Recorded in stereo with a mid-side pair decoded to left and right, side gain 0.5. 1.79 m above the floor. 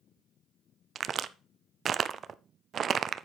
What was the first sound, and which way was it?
A crack, 45° right.